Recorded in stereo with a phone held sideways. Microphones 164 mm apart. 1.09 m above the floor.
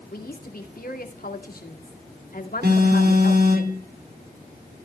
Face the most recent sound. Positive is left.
turn(degrees=-80)